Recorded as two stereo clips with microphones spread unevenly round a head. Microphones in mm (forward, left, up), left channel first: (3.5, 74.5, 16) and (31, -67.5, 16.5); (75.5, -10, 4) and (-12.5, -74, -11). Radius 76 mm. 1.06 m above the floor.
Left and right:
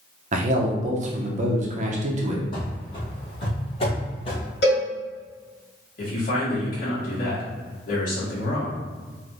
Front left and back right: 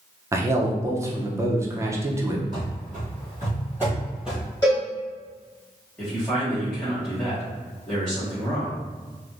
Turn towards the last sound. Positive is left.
turn(degrees=125)